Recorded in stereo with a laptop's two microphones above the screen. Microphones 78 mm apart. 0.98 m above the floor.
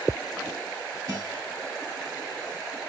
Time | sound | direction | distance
1.1 | a guitar | 50° right (ahead or behind) | 3.5 m